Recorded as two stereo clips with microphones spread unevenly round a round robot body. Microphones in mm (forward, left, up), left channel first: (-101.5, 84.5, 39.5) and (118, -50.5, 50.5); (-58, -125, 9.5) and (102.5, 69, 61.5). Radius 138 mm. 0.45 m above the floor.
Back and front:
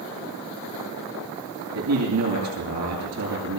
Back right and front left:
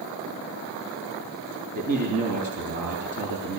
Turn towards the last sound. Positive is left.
turn(degrees=-5)